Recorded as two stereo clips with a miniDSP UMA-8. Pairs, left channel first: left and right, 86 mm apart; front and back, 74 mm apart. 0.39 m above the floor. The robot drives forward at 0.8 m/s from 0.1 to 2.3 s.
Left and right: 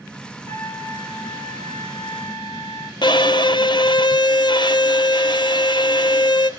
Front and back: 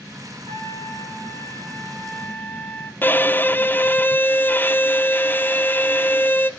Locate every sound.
0.5 s a trumpet: 35° left, 2.5 m; by 2.9 s 70° left, 1.6 m
3.0 s a violin: 60° left, 0.5 m